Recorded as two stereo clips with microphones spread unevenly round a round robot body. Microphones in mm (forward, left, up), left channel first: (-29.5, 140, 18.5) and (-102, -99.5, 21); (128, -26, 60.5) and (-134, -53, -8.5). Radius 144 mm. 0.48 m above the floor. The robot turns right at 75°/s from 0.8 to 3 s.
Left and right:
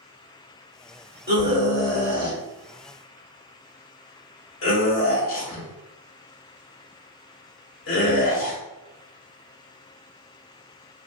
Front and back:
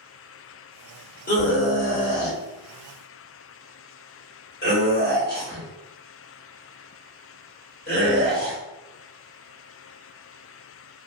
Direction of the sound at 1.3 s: 60° right.